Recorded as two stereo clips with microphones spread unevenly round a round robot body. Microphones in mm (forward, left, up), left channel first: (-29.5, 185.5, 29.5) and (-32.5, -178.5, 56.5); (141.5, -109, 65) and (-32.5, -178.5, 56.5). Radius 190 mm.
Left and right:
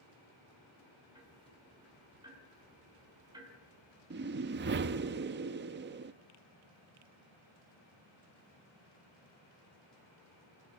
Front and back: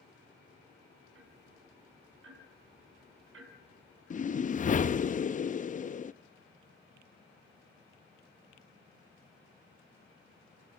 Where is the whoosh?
30° right, 0.7 m.